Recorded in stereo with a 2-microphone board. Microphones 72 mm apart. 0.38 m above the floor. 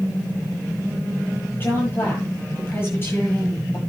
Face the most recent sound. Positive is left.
turn(degrees=30)  # may be behind; listen again after turning